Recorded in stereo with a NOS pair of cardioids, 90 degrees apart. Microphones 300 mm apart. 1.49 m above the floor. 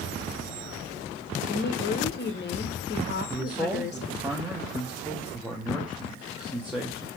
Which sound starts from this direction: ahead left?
A woman speaking, at 1.5 s.